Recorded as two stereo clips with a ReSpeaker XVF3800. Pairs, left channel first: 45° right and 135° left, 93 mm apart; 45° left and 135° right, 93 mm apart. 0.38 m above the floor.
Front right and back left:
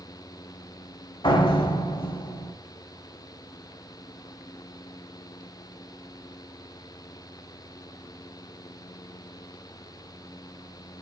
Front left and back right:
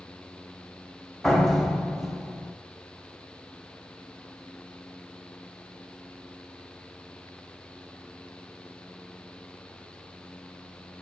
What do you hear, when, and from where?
1.2 s a door slam: 40° right, 1.7 m